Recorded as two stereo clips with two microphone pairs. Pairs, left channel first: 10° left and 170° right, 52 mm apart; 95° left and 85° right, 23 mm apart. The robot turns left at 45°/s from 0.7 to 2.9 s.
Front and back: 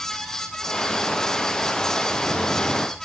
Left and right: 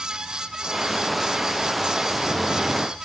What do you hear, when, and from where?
Only background noise.